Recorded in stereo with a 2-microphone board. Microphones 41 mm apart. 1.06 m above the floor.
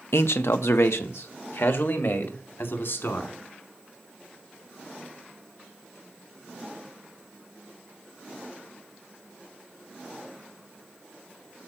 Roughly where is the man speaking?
Left.